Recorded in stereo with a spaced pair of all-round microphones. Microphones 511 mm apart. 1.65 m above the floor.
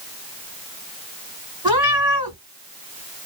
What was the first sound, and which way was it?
A cat meowing, 10° right (ahead or behind).